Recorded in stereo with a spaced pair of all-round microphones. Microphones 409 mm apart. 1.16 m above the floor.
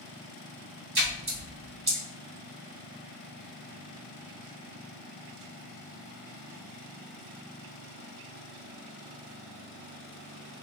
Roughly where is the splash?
Right.